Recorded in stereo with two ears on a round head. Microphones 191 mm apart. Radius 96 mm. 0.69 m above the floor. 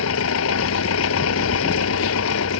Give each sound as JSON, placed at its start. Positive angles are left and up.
{"t": 0.0, "sound": "an engine running", "side_deg": 75}